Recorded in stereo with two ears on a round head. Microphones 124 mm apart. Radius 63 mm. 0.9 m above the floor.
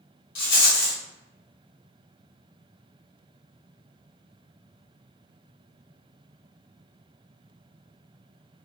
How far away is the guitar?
I don't hear a guitar.